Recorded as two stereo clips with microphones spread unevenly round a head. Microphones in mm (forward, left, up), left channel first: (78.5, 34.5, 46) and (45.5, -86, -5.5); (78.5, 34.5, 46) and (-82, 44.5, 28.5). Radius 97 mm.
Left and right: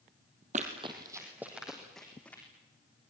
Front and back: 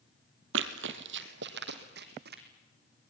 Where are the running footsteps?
170° right, 1.8 m; by 2.4 s 150° left, 3.5 m.